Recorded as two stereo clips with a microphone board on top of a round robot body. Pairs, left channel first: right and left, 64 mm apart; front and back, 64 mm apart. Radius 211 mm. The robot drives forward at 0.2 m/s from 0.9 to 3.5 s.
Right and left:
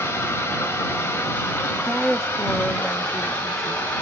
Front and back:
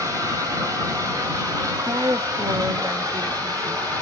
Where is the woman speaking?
175° right, 0.6 m.